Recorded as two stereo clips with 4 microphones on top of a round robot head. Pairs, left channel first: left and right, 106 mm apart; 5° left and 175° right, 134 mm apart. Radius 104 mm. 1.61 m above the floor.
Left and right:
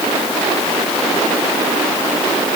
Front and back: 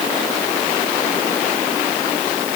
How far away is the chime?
No chime in this recording.